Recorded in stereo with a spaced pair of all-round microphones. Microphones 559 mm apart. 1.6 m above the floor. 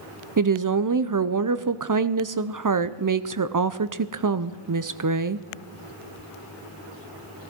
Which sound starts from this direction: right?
A woman speaking, at 0.4 s.